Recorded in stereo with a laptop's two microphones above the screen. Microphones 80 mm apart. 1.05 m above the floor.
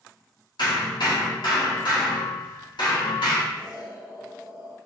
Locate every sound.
0.6 s hammering: 75° left (ahead or behind), 1.5 m
3.5 s an explosion: 65° left (ahead or behind), 1.8 m